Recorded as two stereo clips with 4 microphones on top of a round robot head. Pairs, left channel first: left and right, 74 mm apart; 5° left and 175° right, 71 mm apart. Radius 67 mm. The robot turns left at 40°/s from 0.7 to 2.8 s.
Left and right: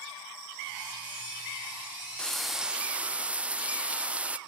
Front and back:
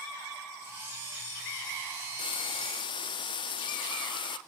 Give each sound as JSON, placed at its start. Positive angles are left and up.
{"t": 2.2, "sound": "frying", "azimuth_deg": 10, "distance_m": 0.6}